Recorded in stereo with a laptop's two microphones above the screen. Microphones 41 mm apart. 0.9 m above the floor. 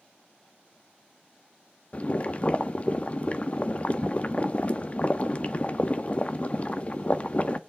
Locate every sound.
1.9 s boiling: 30° left (ahead or behind), 0.9 m